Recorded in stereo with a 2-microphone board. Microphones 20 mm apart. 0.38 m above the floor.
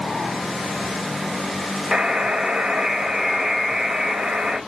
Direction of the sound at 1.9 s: 40° right (ahead or behind).